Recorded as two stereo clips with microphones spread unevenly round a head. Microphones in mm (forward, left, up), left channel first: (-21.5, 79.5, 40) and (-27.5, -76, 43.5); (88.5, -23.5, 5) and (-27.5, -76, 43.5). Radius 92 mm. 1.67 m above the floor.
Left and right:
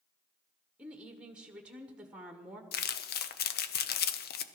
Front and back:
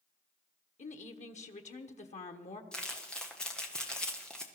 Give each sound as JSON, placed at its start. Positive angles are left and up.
{"t": 0.8, "sound": "a woman speaking", "azimuth_deg": -10, "distance_m": 1.4}
{"t": 2.7, "sound": "crumpling", "azimuth_deg": 110, "distance_m": 1.0}